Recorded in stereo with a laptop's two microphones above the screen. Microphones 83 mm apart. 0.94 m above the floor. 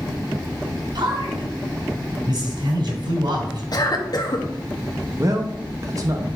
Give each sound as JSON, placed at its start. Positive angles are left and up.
{"t": 0.9, "sound": "a man speaking", "side_deg": -65, "distance_m": 3.0}
{"t": 3.7, "sound": "a cough", "side_deg": 50, "distance_m": 1.1}
{"t": 5.2, "sound": "a man speaking", "side_deg": -45, "distance_m": 0.8}